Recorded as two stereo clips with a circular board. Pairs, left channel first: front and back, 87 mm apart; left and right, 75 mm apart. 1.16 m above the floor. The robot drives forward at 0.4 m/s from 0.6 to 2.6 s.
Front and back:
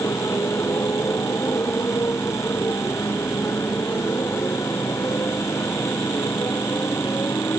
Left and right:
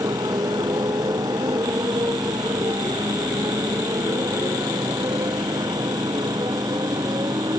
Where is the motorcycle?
55° right; by 7.6 s 60° right.